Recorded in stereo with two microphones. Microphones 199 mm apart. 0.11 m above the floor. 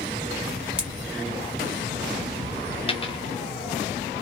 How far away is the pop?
About 1.7 m.